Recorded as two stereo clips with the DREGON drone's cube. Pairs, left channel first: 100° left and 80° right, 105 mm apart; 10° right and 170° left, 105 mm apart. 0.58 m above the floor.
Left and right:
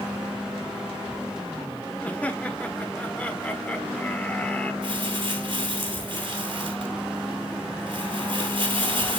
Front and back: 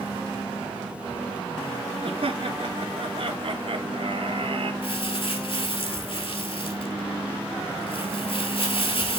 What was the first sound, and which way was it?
Laughter, 175° left.